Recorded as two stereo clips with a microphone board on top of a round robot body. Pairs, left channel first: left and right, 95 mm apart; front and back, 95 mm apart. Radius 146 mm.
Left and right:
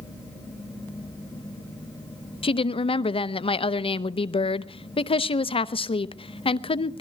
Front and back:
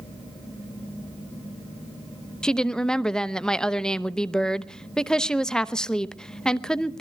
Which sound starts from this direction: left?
A woman speaking, at 2.4 s.